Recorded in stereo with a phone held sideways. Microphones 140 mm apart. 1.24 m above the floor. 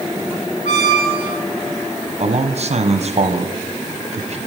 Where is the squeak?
60° left (ahead or behind), 2.5 m.